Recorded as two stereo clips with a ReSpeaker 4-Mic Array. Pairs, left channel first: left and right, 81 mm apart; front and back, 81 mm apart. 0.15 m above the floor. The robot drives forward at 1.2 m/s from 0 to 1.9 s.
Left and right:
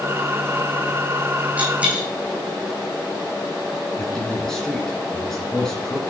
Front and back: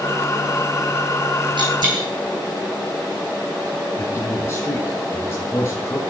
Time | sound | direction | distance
1.6 | a dropped coin | 160° right | 3 m
4.0 | a man speaking | 10° left | 1.6 m